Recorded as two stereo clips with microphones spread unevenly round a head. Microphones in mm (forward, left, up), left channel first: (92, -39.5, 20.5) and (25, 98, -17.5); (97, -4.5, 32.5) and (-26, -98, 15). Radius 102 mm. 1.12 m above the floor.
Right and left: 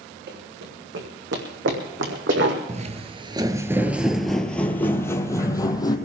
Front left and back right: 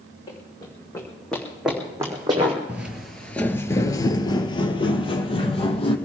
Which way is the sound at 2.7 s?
130° left.